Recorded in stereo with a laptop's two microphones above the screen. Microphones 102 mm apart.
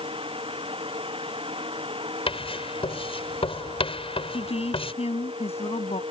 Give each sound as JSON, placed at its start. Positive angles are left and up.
{"t": 0.0, "sound": "a fan", "side_deg": -65}
{"t": 2.3, "sound": "writing", "side_deg": 65}
{"t": 4.3, "sound": "a woman speaking", "side_deg": 80}